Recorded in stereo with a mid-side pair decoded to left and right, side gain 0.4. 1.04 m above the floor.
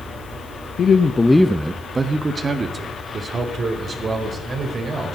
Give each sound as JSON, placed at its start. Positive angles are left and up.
{"t": 0.8, "sound": "a man speaking", "azimuth_deg": 65, "distance_m": 0.9}